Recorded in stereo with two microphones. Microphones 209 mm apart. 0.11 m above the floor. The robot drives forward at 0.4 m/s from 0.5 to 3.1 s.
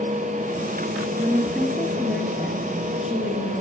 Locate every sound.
1.2 s a woman speaking: 5° right (ahead or behind), 1.7 m